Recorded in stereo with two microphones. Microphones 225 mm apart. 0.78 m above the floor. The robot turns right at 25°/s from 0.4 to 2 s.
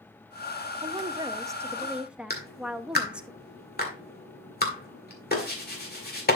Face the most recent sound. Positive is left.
turn(degrees=45)  # may be behind; listen again after turning